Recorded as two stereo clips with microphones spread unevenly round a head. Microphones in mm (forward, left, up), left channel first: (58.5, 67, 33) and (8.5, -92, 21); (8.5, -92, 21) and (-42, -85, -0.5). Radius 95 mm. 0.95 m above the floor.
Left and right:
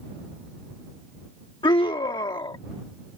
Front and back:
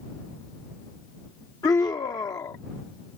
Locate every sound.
1.6 s a scream: 10° left